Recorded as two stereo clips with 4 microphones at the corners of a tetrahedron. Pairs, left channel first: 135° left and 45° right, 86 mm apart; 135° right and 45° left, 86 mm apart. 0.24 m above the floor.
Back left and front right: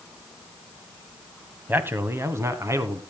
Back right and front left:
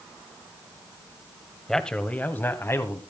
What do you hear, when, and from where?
1.7 s a man speaking: 55° right, 1.2 m; by 3.0 s 85° right, 1.9 m